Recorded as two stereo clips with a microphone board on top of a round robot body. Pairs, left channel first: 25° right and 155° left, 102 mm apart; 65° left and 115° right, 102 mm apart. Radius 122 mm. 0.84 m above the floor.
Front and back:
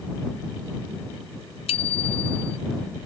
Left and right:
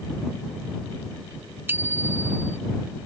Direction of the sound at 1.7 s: 45° right.